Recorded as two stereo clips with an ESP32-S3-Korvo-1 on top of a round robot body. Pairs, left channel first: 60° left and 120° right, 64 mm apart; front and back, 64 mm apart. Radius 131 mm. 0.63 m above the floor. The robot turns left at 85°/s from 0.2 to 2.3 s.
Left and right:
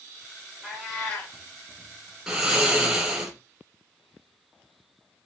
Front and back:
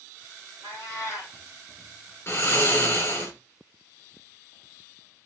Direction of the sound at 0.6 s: 170° left.